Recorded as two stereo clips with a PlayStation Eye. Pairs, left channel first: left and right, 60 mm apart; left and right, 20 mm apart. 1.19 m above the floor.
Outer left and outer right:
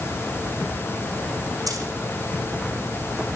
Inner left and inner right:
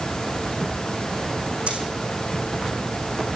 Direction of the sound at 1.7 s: 70° right (ahead or behind).